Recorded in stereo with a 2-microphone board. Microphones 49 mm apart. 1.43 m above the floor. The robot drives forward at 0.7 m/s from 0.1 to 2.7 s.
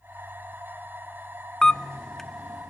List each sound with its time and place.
1.6 s a camera shutter: 15° left (ahead or behind), 0.5 m; by 2.7 s 5° left (ahead or behind), 1.1 m